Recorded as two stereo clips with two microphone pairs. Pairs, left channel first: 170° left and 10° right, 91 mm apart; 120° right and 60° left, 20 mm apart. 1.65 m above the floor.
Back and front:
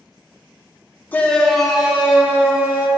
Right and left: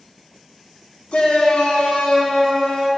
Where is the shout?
120° right, 0.8 m; by 2.9 s 80° right, 1.8 m.